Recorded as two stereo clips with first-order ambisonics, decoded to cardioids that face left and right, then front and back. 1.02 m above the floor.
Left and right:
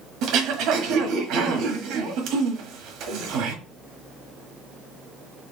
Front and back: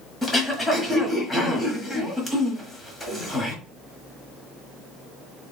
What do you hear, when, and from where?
0.2 s throat clearing: 70° right, 1.3 m